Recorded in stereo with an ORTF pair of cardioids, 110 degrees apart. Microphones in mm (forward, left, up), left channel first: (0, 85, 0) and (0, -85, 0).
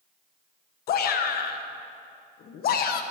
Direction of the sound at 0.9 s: 60° left.